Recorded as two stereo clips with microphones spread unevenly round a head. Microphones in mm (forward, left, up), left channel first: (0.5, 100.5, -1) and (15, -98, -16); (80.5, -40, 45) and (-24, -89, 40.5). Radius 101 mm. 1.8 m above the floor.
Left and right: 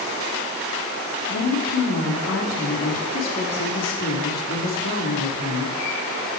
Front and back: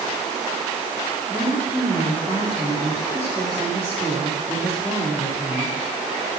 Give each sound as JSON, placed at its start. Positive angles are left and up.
{"t": 1.3, "sound": "a woman speaking", "azimuth_deg": 125, "distance_m": 4.5}